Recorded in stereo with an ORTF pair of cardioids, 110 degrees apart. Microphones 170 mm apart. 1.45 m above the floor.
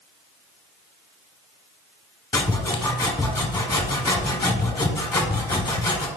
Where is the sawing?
20° left, 1.0 m.